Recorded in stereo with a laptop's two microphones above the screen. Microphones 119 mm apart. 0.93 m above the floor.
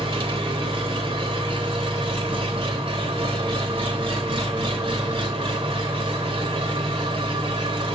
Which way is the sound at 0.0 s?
45° right (ahead or behind).